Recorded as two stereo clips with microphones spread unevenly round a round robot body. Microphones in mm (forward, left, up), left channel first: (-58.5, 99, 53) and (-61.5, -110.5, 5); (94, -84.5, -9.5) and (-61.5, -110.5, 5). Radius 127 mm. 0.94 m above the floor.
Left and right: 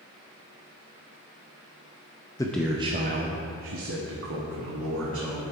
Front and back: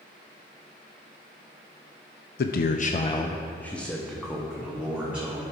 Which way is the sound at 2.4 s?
10° left.